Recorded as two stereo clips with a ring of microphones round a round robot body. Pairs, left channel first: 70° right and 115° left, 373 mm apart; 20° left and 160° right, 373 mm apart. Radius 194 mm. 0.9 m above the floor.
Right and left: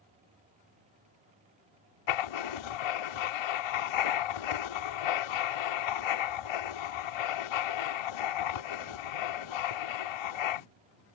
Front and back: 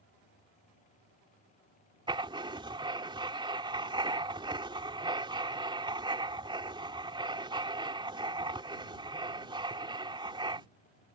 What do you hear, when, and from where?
2.1 s writing: 80° right